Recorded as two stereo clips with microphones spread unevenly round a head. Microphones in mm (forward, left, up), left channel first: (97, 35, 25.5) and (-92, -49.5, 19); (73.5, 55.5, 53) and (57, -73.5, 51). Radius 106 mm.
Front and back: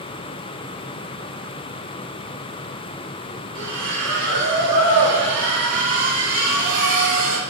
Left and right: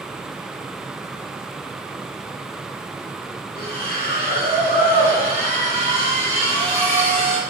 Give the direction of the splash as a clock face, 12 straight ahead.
5 o'clock.